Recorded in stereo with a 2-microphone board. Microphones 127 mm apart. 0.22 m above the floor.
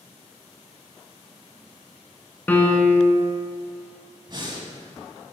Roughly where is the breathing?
Right.